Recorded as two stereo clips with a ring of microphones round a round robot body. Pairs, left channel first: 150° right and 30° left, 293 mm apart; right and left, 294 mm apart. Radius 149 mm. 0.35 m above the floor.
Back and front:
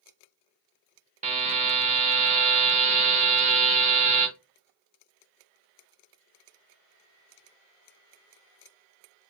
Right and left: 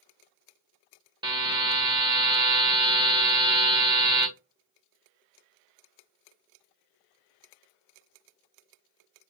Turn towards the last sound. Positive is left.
turn(degrees=40)